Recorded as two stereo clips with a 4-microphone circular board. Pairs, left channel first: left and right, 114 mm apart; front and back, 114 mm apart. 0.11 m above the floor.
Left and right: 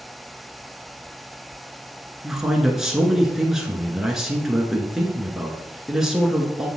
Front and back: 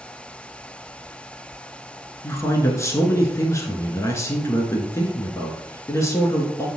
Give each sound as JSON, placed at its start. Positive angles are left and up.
{"t": 2.2, "sound": "a man speaking", "azimuth_deg": -10, "distance_m": 1.2}